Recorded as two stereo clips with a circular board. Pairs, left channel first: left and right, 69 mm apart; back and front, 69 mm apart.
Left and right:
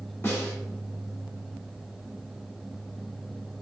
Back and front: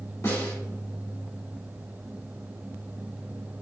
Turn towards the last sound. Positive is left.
turn(degrees=145)